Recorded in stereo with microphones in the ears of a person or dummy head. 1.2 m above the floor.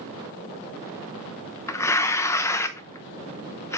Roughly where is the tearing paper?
Centre.